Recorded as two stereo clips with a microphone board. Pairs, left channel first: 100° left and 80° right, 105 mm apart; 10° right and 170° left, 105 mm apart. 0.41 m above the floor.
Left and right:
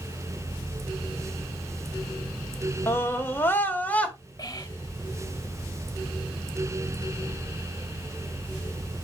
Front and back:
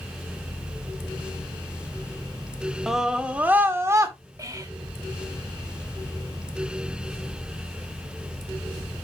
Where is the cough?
No cough in this recording.